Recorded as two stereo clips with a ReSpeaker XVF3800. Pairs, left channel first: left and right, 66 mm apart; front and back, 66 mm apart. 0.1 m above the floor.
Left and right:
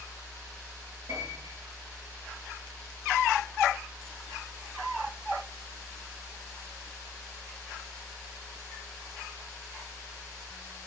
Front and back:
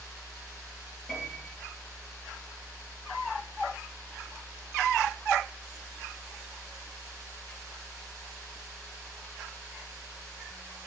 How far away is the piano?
About 2.5 m.